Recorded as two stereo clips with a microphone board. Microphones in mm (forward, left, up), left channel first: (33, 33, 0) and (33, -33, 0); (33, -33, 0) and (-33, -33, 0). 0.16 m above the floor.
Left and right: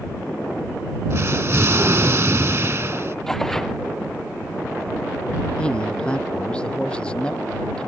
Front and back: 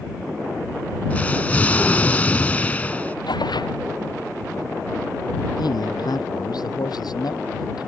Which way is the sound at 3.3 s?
10° left.